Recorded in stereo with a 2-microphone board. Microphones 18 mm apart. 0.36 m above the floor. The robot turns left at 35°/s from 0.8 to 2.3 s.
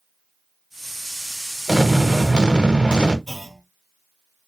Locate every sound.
1.7 s an explosion: 45° right (ahead or behind), 0.7 m; by 3.2 s 60° right (ahead or behind), 0.7 m
3.3 s a clunk: 10° left (ahead or behind), 0.9 m